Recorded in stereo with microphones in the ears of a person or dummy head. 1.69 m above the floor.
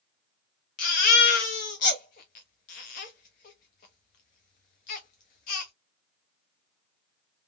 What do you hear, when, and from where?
0.8 s a baby crying: 40° left (ahead or behind), 1.0 m